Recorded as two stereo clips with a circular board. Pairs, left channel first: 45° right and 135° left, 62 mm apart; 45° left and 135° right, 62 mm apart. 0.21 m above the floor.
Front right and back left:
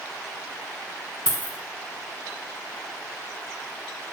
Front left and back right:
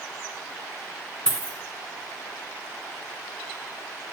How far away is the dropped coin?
About 0.6 m.